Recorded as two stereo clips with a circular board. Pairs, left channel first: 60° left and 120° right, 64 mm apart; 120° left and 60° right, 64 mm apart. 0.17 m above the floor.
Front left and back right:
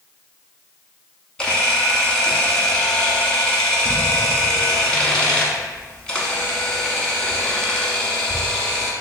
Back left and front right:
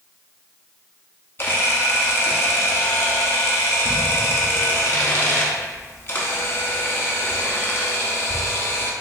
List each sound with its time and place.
1.4 s a camera shutter: 130° left, 0.8 m